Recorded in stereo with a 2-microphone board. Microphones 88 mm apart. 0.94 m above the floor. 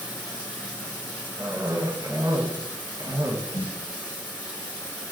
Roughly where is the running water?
Left.